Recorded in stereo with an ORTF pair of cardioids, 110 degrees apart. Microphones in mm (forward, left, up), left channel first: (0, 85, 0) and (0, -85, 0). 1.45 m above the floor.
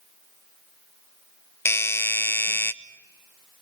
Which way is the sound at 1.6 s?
15° left.